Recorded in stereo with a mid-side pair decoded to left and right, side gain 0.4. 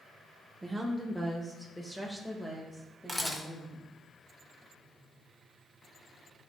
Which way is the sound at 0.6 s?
15° right.